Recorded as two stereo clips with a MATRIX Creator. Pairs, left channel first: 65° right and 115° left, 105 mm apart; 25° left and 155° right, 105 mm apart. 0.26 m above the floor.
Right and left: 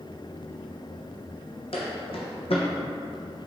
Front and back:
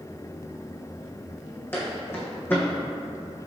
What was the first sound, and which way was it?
Footsteps, 45° right.